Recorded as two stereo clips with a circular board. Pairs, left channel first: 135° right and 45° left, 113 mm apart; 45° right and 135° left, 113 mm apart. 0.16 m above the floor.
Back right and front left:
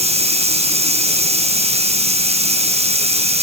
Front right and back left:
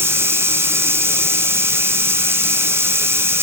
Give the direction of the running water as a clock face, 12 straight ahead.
10 o'clock.